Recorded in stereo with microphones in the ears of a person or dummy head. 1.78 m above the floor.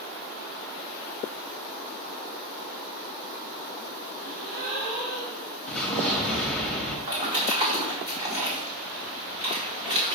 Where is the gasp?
55° right (ahead or behind), 1.2 m.